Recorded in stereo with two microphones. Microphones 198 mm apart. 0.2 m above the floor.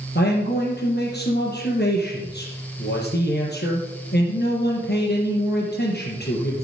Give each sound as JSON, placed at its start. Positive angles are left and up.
{"t": 0.1, "sound": "a man speaking", "side_deg": 60, "distance_m": 3.0}